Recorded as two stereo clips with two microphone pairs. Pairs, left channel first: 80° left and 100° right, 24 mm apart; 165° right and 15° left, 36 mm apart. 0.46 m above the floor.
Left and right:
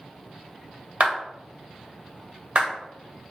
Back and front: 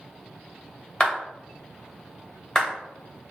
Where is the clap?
100° right, 2 m.